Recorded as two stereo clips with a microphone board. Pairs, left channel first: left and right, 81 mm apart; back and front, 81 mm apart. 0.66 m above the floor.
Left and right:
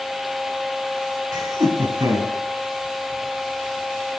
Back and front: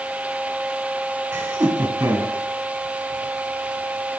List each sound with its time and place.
1.3 s laughter: 70° right, 4.5 m; by 2.3 s 60° right, 5 m